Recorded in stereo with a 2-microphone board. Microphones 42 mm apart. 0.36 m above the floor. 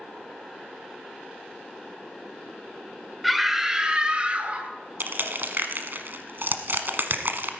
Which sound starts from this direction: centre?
A scream, at 3.2 s.